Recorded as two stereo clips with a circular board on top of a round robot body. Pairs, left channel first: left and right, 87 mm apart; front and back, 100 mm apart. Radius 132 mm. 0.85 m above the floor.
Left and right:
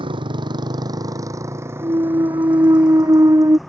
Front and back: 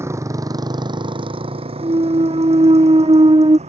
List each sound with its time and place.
0.0 s a motorcycle: 115° right; by 3.7 s straight behind
1.8 s a clunk: 140° right